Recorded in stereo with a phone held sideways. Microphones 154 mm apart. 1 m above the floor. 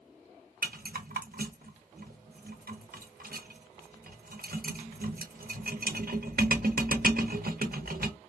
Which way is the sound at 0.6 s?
70° right (ahead or behind).